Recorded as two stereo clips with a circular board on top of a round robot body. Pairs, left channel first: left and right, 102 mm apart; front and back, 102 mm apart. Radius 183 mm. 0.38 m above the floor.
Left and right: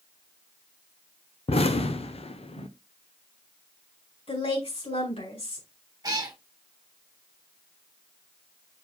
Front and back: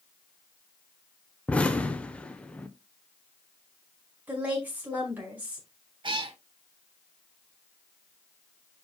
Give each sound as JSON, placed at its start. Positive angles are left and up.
{"t": 1.5, "sound": "an explosion", "azimuth_deg": 80, "distance_m": 1.0}
{"t": 4.3, "sound": "a woman speaking", "azimuth_deg": 105, "distance_m": 5.0}
{"t": 6.0, "sound": "a cat meowing", "azimuth_deg": -145, "distance_m": 1.6}